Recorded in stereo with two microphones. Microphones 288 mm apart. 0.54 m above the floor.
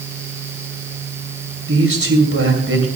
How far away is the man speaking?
About 2.5 m.